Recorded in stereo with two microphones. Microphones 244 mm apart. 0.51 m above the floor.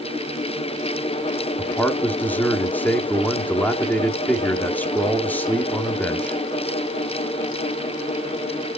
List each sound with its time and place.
1.6 s a man speaking: 5° left (ahead or behind), 0.7 m